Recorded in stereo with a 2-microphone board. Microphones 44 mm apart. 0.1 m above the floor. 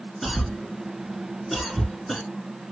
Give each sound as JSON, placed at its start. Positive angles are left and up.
{"t": 0.2, "sound": "a cough", "side_deg": 0, "distance_m": 1.1}